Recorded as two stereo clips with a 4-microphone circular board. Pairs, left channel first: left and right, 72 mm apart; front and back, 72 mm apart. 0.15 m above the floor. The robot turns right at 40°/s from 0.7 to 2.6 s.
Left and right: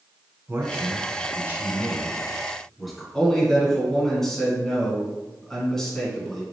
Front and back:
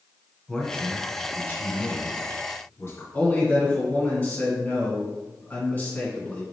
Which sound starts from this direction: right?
A man speaking, at 0.5 s.